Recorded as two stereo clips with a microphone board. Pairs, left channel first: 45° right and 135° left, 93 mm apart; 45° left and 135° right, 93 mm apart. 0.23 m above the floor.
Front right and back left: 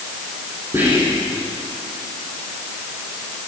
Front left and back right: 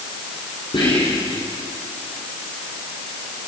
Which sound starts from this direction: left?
Whispering, at 0.7 s.